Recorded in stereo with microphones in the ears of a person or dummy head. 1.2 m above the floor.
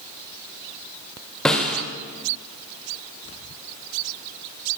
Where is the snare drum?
5° left (ahead or behind), 2 m.